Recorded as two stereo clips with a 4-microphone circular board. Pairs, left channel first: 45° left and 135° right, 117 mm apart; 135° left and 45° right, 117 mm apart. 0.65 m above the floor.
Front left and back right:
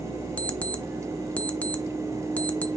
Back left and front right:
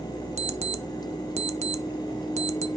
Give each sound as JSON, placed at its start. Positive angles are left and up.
{"t": 0.4, "sound": "an alarm clock", "azimuth_deg": -30, "distance_m": 0.7}